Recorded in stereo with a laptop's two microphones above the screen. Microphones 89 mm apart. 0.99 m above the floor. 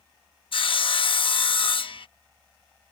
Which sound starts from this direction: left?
Sawing, at 0.5 s.